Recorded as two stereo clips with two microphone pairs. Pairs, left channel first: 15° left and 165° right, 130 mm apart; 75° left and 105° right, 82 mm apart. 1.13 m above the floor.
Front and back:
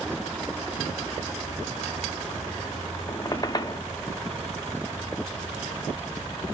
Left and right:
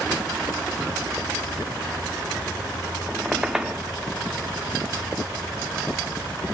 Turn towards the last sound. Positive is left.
turn(degrees=-25)